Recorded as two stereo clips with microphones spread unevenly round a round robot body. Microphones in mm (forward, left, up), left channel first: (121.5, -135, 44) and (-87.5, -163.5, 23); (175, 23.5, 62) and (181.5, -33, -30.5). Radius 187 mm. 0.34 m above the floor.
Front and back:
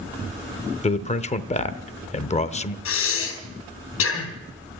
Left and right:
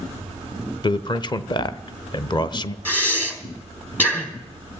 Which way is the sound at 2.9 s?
10° left.